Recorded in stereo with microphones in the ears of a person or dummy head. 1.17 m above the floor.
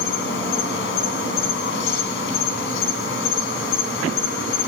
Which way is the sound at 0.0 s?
70° left (ahead or behind).